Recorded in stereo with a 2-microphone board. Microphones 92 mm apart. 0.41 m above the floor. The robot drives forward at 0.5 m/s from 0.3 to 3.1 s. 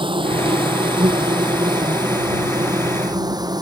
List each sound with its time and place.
0.0 s an insect: 60° right (ahead or behind); by 3.6 s 45° right (ahead or behind)